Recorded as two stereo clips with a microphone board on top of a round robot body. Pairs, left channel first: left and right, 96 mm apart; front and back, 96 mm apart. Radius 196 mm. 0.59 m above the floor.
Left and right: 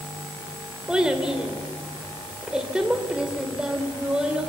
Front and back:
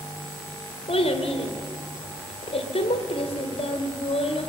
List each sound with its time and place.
0.9 s a child speaking: 5° right, 2.5 m